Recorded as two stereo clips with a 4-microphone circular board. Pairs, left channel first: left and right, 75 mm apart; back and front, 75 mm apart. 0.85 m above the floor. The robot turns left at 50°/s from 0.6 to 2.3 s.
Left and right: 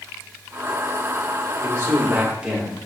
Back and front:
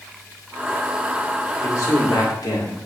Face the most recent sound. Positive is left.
turn(degrees=-165)